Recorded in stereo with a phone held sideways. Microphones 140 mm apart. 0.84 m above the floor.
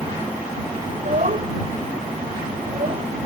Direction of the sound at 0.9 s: 55° right (ahead or behind).